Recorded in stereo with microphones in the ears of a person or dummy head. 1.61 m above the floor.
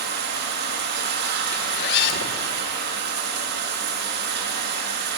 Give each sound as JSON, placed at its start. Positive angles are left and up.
{"t": 0.0, "sound": "running water", "side_deg": -60, "distance_m": 2.5}
{"t": 1.5, "sound": "a zipper", "side_deg": 65, "distance_m": 1.7}